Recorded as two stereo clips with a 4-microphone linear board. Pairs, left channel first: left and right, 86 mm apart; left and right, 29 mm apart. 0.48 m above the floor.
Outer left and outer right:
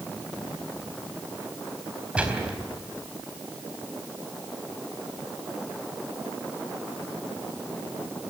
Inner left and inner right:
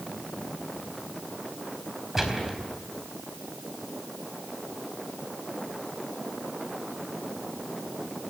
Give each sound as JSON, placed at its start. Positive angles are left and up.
{"t": 2.1, "sound": "a gunshot", "side_deg": -15, "distance_m": 4.0}